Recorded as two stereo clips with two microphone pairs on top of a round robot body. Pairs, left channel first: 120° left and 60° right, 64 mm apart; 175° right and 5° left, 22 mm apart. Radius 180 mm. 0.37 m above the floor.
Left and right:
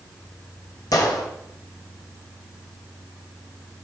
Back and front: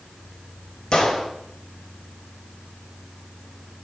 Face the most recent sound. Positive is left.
turn(degrees=120)